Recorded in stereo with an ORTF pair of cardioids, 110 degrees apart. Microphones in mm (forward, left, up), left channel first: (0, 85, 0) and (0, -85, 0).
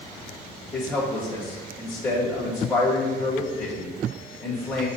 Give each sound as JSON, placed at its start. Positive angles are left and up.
{"t": 0.7, "sound": "a man speaking", "azimuth_deg": 5, "distance_m": 2.0}